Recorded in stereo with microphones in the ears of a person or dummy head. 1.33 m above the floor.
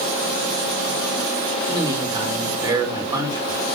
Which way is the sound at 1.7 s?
25° right (ahead or behind).